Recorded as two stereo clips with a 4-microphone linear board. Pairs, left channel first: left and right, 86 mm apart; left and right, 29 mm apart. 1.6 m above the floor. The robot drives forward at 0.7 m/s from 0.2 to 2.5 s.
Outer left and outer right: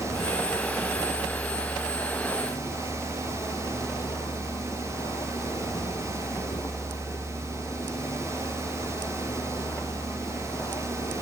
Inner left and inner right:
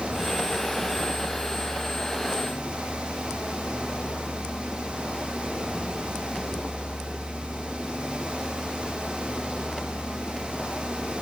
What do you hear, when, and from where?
0.0 s a vehicle: 50° left (ahead or behind); by 11.2 s 45° left (ahead or behind)